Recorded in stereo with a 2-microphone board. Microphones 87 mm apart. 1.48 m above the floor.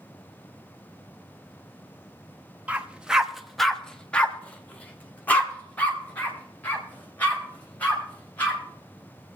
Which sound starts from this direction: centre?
A dog barking, at 2.7 s.